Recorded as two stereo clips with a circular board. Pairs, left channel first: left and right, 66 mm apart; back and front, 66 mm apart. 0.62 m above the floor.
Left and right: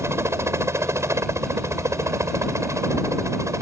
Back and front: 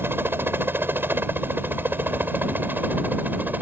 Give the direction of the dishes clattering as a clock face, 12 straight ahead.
I don't hear dishes clattering.